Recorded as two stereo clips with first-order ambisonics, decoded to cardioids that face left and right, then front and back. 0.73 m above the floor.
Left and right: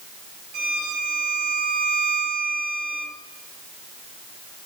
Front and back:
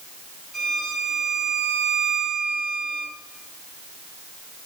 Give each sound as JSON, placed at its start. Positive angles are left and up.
{"t": 0.5, "sound": "a violin", "azimuth_deg": -100, "distance_m": 1.9}